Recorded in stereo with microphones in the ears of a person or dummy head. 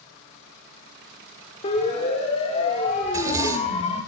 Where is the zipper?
20° right (ahead or behind), 2.5 m.